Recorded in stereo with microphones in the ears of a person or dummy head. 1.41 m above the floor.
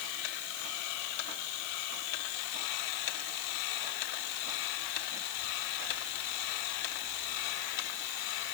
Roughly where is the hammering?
No hammering in this recording.